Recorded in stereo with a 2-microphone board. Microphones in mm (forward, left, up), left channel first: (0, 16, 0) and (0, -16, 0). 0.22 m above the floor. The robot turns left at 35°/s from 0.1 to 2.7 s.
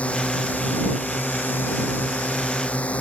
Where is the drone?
135° left; by 3.0 s 45° left.